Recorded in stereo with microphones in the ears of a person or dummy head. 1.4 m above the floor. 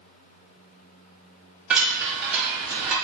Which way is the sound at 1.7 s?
5° right (ahead or behind).